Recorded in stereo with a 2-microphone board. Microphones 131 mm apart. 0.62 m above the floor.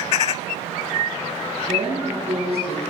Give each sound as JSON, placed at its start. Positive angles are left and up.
{"t": 1.7, "sound": "a woman speaking", "side_deg": -50, "distance_m": 8.5}